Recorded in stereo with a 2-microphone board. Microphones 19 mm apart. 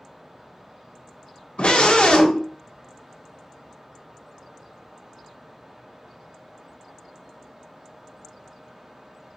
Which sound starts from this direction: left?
A scream, at 1.6 s.